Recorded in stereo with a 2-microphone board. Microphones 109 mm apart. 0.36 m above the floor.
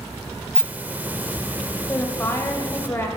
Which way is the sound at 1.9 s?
20° left (ahead or behind).